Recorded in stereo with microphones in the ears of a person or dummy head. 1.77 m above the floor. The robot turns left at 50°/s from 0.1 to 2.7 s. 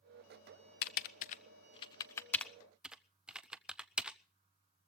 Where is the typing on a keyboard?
50° left (ahead or behind), 0.5 m; by 4.2 s 5° right (ahead or behind), 0.5 m.